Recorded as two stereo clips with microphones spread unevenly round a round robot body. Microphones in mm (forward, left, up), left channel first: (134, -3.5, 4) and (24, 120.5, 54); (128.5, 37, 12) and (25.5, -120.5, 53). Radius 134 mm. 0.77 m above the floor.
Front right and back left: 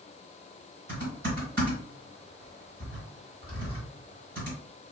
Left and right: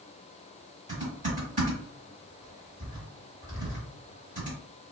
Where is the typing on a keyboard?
Straight behind, 1.3 m.